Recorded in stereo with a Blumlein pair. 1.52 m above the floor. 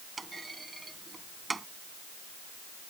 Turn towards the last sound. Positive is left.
turn(degrees=-10)